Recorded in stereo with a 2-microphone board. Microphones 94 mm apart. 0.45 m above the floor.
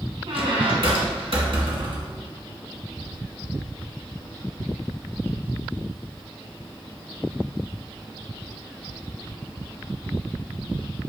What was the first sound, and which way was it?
A squeak, 70° right (ahead or behind).